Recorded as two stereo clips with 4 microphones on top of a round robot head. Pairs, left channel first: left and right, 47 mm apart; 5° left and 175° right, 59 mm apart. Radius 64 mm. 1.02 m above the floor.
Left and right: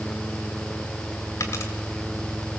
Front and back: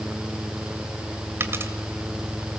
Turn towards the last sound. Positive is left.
turn(degrees=135)